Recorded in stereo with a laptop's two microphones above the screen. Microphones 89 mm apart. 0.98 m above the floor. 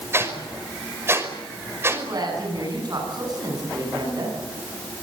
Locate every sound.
0.1 s a whoosh: 25° right (ahead or behind), 5.5 m
1.9 s a woman speaking: 45° right (ahead or behind), 9.5 m